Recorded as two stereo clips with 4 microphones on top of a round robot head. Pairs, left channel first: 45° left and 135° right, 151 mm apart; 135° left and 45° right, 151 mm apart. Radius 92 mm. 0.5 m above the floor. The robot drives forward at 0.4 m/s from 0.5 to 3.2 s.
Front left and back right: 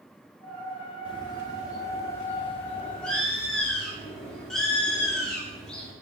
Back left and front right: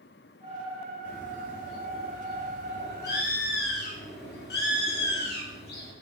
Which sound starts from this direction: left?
A bird, at 1.1 s.